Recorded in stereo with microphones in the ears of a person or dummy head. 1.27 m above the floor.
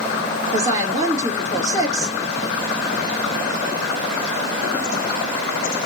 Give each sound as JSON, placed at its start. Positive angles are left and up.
{"t": 0.5, "sound": "a woman speaking", "side_deg": -20, "distance_m": 2.5}